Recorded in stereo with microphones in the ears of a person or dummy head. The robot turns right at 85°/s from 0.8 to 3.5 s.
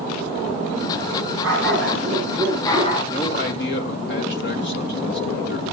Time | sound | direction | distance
1.4 | a dog barking | 90° right | 7 m
3.1 | a man speaking | 25° left | 3.5 m